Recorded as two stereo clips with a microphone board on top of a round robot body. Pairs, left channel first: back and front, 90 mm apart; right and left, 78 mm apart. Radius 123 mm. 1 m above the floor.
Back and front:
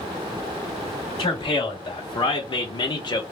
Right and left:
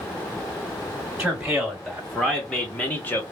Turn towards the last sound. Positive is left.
turn(degrees=-150)